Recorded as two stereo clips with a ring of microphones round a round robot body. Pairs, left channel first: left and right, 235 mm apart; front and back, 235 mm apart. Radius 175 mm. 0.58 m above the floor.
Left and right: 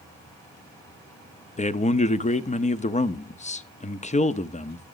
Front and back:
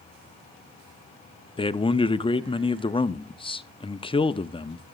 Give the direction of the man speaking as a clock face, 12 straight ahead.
10 o'clock.